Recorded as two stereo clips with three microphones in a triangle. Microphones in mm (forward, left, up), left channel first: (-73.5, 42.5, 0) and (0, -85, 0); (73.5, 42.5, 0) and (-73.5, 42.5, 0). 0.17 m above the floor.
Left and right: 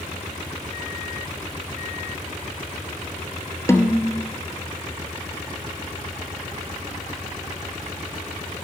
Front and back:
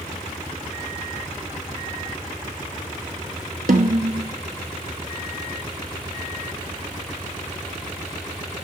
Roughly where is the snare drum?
Behind.